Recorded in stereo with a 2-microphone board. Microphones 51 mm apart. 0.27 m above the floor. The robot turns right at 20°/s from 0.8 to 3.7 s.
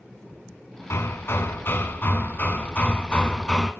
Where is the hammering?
110° left, 2.5 m; by 3.7 s 165° left, 2.5 m.